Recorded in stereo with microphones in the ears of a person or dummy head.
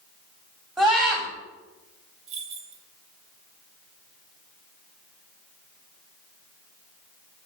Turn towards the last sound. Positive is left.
turn(degrees=-40)  # may be behind; listen again after turning